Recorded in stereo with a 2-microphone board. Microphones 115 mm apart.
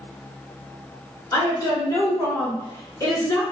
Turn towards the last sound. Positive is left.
turn(degrees=30)  # may be behind; listen again after turning